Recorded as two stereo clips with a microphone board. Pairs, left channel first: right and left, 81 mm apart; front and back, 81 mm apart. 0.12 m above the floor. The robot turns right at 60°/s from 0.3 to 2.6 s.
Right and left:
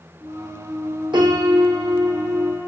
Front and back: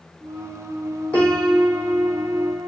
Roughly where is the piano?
Left.